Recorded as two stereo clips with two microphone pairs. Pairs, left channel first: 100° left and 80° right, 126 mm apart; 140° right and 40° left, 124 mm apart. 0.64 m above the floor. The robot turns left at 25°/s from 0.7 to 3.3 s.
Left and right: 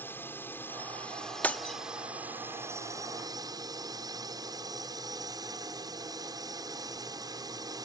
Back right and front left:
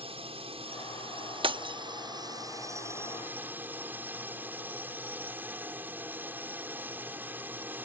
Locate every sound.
0.0 s a drone: 30° left; by 7.8 s 35° right
1.4 s breaking glass: 25° left; by 1.8 s 15° left